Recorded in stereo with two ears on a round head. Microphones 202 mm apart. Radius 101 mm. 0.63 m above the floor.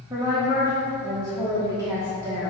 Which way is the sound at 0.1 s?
15° right (ahead or behind).